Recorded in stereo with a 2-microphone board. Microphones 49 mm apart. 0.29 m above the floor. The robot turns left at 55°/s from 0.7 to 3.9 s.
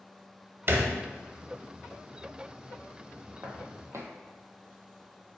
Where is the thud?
45° right (ahead or behind), 0.5 m; by 0.9 s 40° right (ahead or behind), 0.5 m.